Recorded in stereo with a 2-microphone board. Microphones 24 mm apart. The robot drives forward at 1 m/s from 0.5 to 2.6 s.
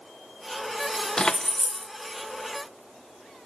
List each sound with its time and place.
1.2 s keys jangling: 35° left (ahead or behind), 0.5 m; by 1.9 s 15° left (ahead or behind), 1.1 m